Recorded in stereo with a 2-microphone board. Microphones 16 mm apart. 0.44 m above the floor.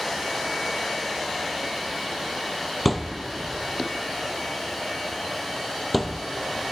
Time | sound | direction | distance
2.9 | a thud | centre (ahead or behind) | 0.6 m